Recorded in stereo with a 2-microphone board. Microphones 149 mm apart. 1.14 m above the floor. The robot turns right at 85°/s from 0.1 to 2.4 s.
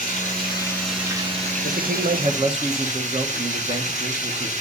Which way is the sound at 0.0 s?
110° left.